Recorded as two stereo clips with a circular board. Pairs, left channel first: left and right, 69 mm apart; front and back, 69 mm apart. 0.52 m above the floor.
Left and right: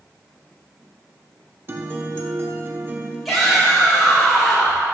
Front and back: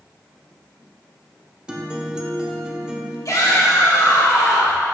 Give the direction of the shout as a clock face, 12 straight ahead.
12 o'clock.